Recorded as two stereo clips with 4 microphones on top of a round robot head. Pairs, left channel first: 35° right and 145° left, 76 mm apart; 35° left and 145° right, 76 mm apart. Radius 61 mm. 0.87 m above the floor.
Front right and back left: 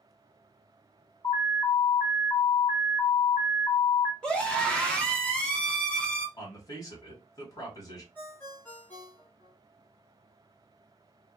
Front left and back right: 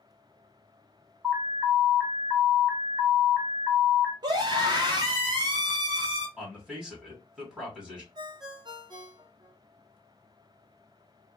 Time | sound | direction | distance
1.2 | an alarm | 50° right | 1.3 m
4.2 | a scream | 115° right | 1.2 m
6.4 | a man speaking | 65° right | 1.5 m
8.2 | a ringtone | 105° right | 0.8 m